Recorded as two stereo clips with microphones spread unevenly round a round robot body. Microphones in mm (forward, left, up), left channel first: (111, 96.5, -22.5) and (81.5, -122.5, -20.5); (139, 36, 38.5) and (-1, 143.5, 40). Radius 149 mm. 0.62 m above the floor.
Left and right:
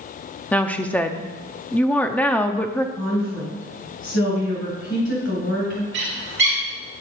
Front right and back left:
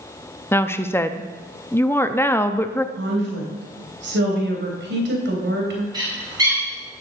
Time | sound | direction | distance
0.5 | a woman speaking | 10° left | 0.7 m
3.0 | a woman speaking | 135° left | 3.5 m
5.9 | a bird | 145° right | 2.5 m